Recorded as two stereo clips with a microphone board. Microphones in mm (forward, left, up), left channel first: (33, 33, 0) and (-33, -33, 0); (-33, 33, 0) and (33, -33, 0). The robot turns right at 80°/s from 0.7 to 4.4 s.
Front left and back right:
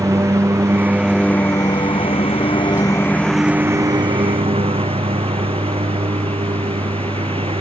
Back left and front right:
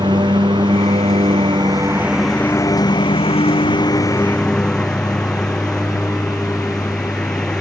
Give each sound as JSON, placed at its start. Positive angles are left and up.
{"t": 0.0, "sound": "a lawn mower", "azimuth_deg": -75}